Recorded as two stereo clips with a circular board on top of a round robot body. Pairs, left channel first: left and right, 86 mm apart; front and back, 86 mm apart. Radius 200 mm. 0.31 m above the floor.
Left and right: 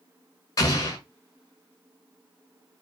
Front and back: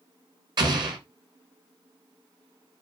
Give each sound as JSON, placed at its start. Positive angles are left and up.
{"t": 0.6, "sound": "an explosion", "azimuth_deg": 140, "distance_m": 0.9}